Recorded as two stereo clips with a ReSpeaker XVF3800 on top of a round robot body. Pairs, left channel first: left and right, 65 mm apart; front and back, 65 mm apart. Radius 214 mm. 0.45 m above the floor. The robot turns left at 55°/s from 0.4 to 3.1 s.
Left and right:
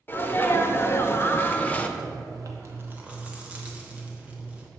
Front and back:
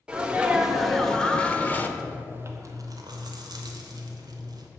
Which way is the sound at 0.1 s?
115° left.